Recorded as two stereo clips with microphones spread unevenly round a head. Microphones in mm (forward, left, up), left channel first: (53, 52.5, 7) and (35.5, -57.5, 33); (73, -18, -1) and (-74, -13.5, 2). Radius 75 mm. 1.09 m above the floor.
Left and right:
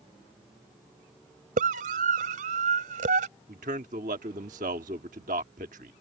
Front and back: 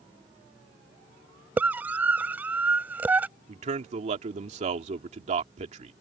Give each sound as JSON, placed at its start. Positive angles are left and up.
{"t": 1.6, "sound": "a scream", "azimuth_deg": -100}
{"t": 3.5, "sound": "a man speaking", "azimuth_deg": -135}